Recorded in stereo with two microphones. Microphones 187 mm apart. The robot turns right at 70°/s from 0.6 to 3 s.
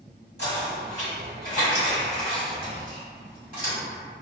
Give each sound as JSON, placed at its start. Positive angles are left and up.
{"t": 0.4, "sound": "knocking", "side_deg": 65, "distance_m": 1.8}